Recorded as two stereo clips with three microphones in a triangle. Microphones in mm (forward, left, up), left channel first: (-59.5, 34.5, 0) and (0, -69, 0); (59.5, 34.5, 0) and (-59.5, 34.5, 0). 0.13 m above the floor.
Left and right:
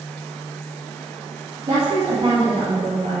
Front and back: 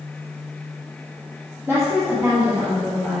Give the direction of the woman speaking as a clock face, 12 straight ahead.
4 o'clock.